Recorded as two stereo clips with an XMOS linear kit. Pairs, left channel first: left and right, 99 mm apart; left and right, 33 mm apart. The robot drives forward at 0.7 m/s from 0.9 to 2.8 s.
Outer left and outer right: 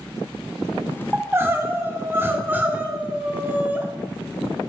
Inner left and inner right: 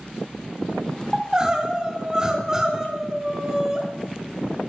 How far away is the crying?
About 1.0 m.